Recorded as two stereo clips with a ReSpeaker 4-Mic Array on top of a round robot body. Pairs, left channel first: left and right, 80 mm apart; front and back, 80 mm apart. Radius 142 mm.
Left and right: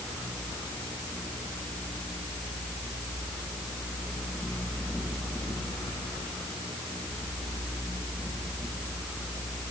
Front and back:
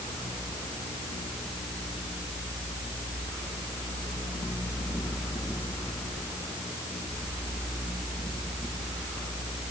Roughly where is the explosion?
No explosion in this recording.